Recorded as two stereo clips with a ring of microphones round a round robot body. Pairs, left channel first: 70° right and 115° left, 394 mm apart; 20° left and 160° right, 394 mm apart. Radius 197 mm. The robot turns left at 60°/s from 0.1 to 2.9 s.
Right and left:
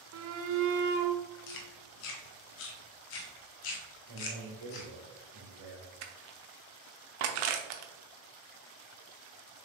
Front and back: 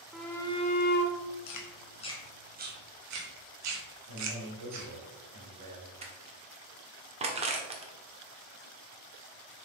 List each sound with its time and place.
0.1 s a shout: 115° left, 0.8 m; by 1.2 s 55° left, 0.8 m
1.5 s chewing: 20° right, 1.2 m; by 4.9 s 105° right, 1.2 m
4.1 s a man speaking: 155° left, 1.8 m
6.0 s crushing: 125° left, 0.9 m